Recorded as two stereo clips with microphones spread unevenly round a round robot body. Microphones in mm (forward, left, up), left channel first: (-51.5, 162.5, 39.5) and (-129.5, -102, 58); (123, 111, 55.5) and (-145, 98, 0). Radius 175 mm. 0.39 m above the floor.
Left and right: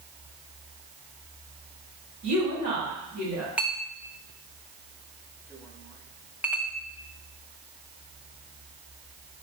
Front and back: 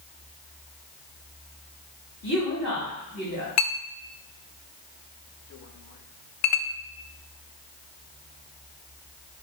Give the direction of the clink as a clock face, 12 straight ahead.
1 o'clock.